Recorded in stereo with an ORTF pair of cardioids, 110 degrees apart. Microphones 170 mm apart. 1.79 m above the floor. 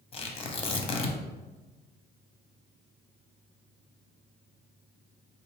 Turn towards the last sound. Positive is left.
turn(degrees=35)